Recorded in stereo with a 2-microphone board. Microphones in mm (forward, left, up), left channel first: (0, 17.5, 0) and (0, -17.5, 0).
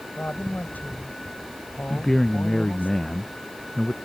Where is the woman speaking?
65° left (ahead or behind).